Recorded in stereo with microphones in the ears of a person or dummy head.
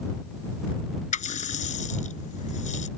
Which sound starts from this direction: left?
A running tap, at 1.1 s.